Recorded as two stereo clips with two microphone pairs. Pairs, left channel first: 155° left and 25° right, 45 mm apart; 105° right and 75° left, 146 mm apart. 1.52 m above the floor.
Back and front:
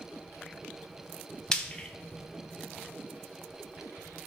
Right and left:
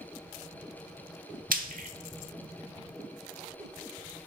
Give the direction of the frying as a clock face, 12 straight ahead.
9 o'clock.